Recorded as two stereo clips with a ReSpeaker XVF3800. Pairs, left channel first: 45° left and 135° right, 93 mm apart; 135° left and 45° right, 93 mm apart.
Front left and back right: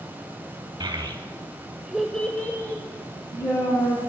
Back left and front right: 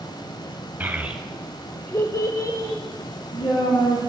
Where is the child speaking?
110° right, 1.0 m; by 4.0 s 95° left, 1.9 m.